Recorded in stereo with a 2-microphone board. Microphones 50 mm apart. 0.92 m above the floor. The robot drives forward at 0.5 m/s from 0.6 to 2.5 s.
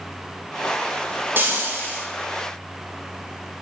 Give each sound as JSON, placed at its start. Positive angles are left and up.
{"t": 1.4, "sound": "frying", "side_deg": -40, "distance_m": 1.2}